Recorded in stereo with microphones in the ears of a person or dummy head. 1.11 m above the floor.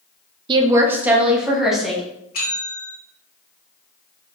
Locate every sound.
0.5 s a woman speaking: 35° right (ahead or behind), 0.5 m; by 2.0 s 5° right (ahead or behind), 1.7 m
2.3 s a bell: 50° left (ahead or behind), 1.0 m